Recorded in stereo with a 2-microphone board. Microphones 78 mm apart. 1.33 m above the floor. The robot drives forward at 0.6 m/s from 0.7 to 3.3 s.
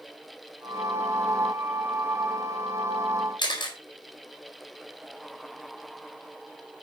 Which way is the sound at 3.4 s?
80° left.